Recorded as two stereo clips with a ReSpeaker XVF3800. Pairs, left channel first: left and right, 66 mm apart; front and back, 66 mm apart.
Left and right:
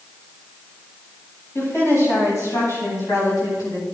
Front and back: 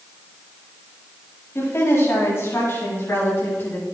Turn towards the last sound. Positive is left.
turn(degrees=55)